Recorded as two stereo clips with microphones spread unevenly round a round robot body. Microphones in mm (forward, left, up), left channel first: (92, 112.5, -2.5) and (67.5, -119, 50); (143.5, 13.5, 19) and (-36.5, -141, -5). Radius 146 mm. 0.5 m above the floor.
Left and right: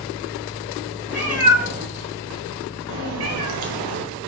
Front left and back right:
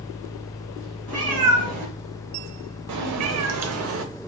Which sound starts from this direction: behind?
A cat meowing, at 1.1 s.